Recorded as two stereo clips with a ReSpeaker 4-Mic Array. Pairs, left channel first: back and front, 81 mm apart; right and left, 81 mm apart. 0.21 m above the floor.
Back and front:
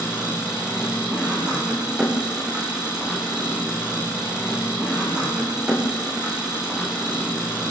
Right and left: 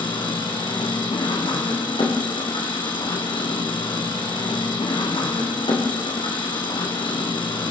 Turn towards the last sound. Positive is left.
turn(degrees=-80)